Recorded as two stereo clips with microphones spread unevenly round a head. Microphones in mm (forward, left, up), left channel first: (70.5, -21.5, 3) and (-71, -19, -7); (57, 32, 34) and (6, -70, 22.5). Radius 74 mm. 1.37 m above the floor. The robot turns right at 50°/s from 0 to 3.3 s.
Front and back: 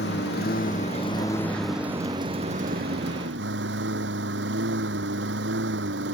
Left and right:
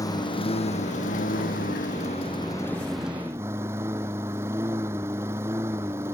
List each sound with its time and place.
0.0 s a lawn mower: 5° left; by 6.2 s 170° left